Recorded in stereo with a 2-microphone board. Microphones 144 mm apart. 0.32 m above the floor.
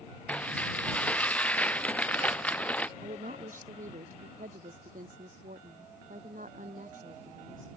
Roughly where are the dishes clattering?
Centre.